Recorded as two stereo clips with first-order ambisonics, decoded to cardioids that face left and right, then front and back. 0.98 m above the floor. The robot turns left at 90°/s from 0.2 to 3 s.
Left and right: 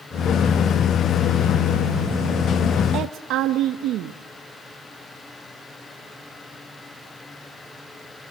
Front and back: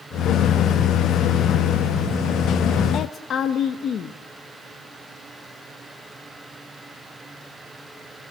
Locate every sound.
2.9 s a woman speaking: 50° right, 0.9 m; by 4.2 s 55° right, 0.9 m